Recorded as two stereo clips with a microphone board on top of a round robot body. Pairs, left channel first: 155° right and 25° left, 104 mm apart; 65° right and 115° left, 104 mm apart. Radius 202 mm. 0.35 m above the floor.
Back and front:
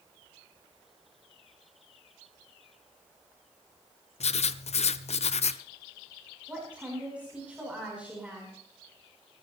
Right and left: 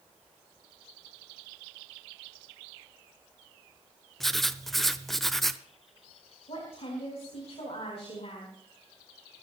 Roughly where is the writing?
Behind right.